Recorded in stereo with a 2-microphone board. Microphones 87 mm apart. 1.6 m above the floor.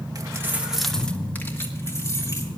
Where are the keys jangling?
45° right (ahead or behind), 1.1 m; by 2.5 s 35° left (ahead or behind), 3 m.